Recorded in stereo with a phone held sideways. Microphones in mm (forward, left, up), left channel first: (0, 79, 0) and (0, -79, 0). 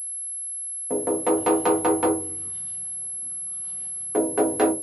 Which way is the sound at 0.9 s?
5° right (ahead or behind).